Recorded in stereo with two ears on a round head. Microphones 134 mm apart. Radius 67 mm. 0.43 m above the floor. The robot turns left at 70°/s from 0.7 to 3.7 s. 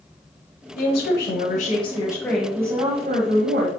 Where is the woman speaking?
115° left, 2.0 m; by 3.7 s 90° right, 2.0 m.